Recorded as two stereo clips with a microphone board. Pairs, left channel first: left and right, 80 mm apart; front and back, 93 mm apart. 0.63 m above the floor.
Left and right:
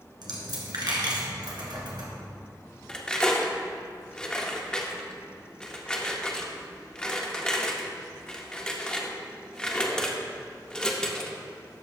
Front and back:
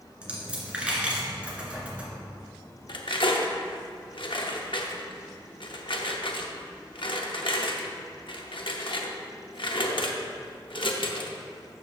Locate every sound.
0.2 s a dropped coin: 105° right, 1.8 m
2.9 s cutlery clinking: 10° left, 0.7 m